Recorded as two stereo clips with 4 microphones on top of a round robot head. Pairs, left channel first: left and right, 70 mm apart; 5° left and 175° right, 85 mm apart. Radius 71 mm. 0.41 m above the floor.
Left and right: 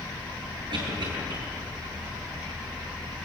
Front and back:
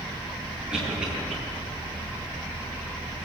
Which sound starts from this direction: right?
A cough, at 0.7 s.